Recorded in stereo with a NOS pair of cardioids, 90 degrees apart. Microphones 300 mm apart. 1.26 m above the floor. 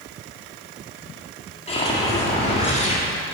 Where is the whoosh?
20° left, 2.0 m.